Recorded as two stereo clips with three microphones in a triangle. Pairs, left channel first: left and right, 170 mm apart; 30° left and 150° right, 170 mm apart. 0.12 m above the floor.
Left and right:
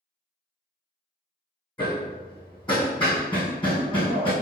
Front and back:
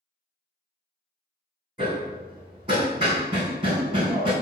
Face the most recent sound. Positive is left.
turn(degrees=150)